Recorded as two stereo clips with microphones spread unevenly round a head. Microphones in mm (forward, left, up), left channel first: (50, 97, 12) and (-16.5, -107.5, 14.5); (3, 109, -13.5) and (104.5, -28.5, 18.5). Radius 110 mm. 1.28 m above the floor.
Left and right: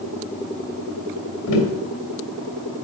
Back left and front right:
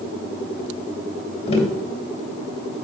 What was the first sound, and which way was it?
Tapping, 70° left.